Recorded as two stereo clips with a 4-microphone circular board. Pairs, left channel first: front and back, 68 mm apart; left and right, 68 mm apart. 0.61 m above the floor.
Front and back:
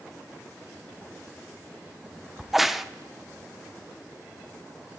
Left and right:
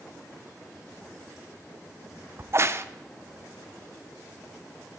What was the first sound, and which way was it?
A crack, 95° right.